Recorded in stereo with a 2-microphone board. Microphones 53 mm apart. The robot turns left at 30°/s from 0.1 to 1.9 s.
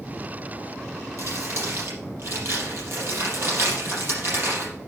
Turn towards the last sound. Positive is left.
turn(degrees=-50)  # may be behind; listen again after turning